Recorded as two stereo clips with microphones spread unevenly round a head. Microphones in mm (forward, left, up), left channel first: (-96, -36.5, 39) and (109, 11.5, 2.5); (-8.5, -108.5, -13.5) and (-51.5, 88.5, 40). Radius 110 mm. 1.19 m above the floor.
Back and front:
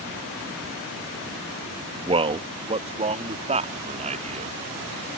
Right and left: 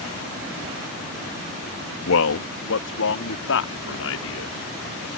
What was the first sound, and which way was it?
A man speaking, 55° right.